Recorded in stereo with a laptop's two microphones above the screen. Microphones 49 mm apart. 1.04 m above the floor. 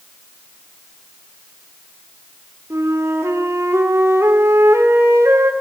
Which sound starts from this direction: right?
A flute, at 2.7 s.